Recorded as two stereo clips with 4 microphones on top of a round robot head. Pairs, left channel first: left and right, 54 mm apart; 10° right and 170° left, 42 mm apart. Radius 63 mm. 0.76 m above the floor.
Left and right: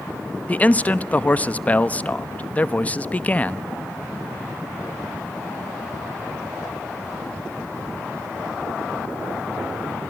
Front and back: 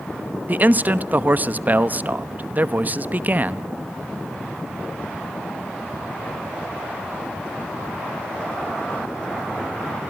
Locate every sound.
0.5 s a man speaking: 145° left, 1.1 m